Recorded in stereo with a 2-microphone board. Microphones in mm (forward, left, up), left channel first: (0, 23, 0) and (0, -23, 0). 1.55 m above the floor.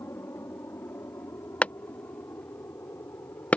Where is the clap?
25° left (ahead or behind).